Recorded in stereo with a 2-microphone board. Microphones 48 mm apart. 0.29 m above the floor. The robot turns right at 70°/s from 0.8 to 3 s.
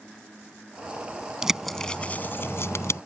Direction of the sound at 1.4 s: 15° right (ahead or behind).